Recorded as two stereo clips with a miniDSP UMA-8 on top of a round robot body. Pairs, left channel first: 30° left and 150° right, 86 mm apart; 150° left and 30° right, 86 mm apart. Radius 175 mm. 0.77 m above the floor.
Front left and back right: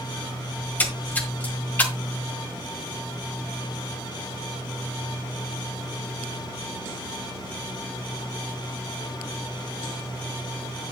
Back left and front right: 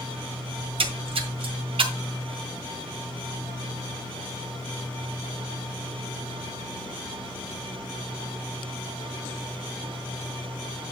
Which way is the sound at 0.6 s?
45° right.